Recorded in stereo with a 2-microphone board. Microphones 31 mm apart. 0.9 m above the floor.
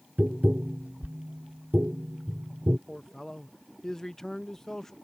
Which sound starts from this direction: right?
Tapping, at 0.2 s.